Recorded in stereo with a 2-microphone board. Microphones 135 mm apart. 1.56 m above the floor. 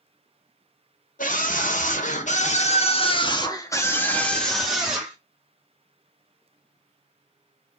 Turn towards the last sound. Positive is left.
turn(degrees=-5)  # may be behind; listen again after turning